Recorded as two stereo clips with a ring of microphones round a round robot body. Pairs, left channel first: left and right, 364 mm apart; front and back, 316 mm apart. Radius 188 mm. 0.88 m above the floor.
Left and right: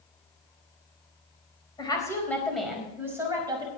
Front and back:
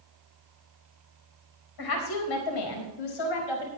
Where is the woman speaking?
10° left, 4.5 m; by 3.7 s 10° right, 5.5 m.